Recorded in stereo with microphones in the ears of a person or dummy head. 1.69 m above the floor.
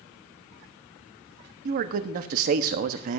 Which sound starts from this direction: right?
A man speaking, at 1.6 s.